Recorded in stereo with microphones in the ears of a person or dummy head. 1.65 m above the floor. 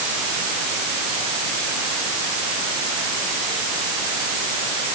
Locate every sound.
Only background noise.